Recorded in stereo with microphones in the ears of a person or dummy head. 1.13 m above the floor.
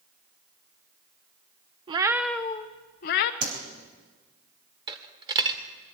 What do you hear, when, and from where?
1.9 s a cat meowing: 25° right (ahead or behind), 0.7 m; by 3.3 s 55° left (ahead or behind), 0.8 m
3.4 s a whoosh: 65° right (ahead or behind), 3.5 m
4.9 s a dropped coin: 25° right (ahead or behind), 1.6 m